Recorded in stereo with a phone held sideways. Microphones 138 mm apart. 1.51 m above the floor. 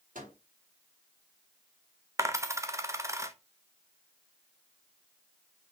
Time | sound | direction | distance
0.1 | a microwave | 75° right (ahead or behind) | 3.5 m
2.2 | a dropped coin | 20° right (ahead or behind) | 0.8 m